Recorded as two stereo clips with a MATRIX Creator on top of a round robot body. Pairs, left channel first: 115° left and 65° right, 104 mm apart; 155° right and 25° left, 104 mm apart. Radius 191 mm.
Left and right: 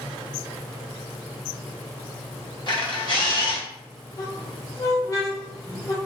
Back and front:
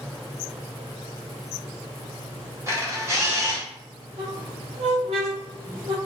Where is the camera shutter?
80° left, 1.6 m.